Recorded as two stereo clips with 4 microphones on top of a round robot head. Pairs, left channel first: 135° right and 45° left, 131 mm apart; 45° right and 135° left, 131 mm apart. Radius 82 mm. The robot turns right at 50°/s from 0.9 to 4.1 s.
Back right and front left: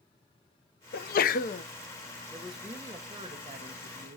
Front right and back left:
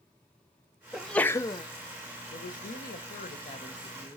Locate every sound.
0.9 s a sneeze: 135° right, 0.7 m; by 1.6 s 100° right, 0.7 m
2.3 s a woman speaking: 55° right, 1.4 m; by 4.2 s 35° left, 1.4 m